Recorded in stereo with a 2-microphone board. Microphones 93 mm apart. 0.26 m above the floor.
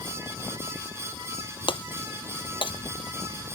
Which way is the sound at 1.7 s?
65° left (ahead or behind).